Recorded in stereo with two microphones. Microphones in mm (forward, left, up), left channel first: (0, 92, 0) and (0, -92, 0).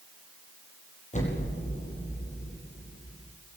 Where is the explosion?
40° left (ahead or behind), 8.5 m.